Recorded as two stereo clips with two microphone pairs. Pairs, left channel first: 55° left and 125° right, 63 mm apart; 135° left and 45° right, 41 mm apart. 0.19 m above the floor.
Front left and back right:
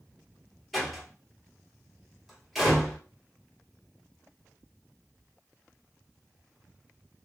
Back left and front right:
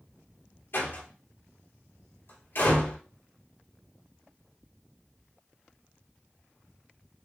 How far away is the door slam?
About 2.5 m.